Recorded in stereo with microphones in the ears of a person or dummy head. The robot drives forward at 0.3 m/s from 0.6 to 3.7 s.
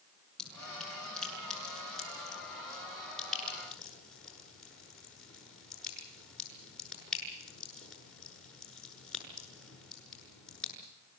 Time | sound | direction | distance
0.4 | dripping | 5° left (ahead or behind) | 6.5 m